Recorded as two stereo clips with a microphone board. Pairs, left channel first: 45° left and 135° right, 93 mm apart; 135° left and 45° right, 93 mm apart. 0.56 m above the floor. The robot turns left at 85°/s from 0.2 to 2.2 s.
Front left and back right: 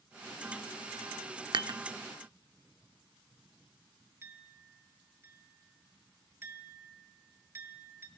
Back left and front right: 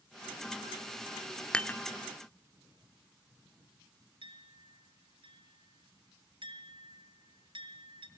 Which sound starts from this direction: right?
A clink, at 4.2 s.